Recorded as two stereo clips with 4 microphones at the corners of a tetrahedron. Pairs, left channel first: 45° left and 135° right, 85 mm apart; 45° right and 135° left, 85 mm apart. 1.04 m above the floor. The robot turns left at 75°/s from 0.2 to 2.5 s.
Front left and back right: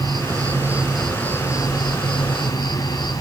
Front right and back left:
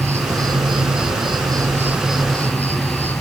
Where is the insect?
165° right, 2 m; by 3.2 s 20° left, 2 m.